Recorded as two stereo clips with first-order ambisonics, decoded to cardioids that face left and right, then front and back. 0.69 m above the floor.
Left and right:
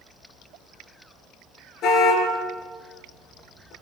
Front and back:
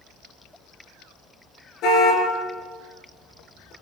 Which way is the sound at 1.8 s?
40° left.